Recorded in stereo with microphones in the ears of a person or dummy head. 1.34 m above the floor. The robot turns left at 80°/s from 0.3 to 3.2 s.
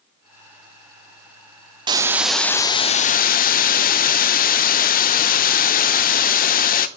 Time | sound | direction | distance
1.9 | a hiss | 140° right | 0.7 m